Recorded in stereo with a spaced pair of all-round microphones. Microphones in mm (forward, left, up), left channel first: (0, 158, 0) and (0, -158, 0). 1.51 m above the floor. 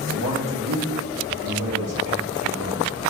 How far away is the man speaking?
About 1.8 m.